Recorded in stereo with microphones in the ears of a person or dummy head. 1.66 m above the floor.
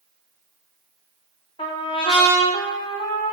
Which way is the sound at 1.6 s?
25° left (ahead or behind).